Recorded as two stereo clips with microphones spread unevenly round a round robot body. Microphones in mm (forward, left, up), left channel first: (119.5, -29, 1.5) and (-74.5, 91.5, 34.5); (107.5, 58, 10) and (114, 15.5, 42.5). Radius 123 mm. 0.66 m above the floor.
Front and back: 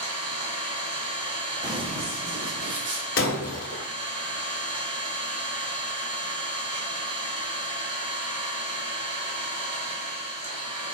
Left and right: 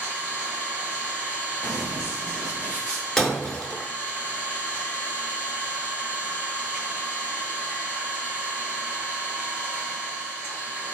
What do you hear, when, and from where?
0.0 s an engine running: 175° left, 1.5 m
1.6 s running footsteps: 165° left, 0.6 m; by 3.1 s straight behind, 1.3 m
3.2 s breaking glass: 20° right, 0.8 m